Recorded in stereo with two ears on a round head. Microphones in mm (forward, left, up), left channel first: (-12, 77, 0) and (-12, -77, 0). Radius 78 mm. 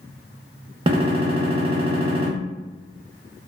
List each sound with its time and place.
0.9 s a gunshot: 30° right (ahead or behind), 0.5 m